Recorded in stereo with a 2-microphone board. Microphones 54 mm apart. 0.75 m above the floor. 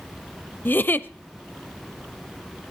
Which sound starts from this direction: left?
A giggle, at 0.7 s.